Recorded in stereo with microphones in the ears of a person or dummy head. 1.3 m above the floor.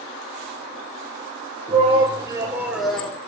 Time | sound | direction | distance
1.7 | a shout | 35° right (ahead or behind) | 1.5 m